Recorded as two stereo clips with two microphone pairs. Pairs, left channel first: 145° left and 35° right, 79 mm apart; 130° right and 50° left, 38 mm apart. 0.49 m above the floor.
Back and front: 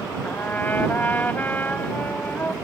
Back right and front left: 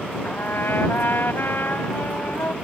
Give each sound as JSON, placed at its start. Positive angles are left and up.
{"t": 0.2, "sound": "a trumpet", "azimuth_deg": -145}